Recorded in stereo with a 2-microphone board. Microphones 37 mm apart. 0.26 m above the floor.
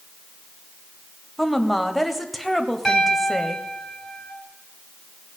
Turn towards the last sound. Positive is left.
turn(degrees=10)  # may be behind; listen again after turning